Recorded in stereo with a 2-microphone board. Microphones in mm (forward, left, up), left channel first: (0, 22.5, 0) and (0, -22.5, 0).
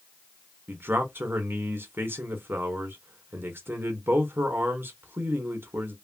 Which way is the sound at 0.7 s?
55° right (ahead or behind).